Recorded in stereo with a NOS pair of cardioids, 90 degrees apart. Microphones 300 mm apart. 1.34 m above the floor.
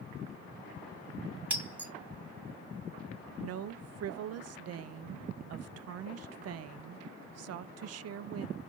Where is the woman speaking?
55° right, 0.5 m.